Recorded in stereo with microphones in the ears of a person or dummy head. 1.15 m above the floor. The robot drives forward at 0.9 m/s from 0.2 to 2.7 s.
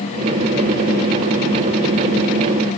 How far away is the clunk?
I don't hear a clunk.